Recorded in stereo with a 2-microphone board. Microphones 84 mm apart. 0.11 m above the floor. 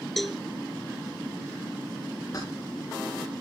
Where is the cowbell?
Centre (ahead or behind), 0.7 m.